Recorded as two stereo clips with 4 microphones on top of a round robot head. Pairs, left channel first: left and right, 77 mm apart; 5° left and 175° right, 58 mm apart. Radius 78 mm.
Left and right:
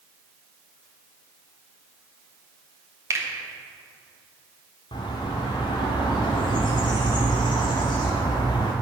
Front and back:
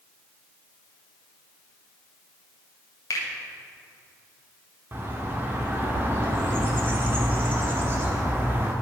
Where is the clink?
I don't hear a clink.